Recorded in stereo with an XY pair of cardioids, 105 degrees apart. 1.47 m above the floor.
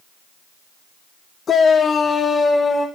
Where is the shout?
50° left, 1.0 m; by 2.9 s 30° left, 2.5 m.